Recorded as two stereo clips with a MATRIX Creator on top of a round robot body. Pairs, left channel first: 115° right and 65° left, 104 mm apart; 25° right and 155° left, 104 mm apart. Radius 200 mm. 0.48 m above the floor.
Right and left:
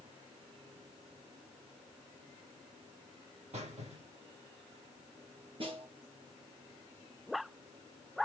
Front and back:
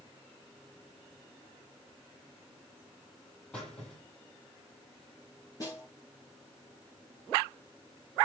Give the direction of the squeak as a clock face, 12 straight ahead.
10 o'clock.